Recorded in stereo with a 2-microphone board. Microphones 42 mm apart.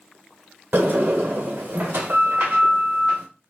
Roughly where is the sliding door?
Right.